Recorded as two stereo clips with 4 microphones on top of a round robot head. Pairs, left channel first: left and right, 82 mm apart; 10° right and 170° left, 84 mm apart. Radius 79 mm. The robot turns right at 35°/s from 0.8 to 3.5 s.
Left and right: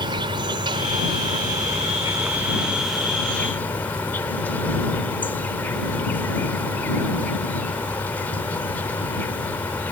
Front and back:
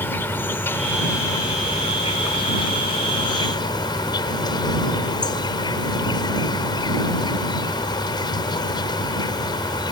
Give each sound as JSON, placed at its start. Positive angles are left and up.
{"t": 0.0, "sound": "an insect", "azimuth_deg": -75}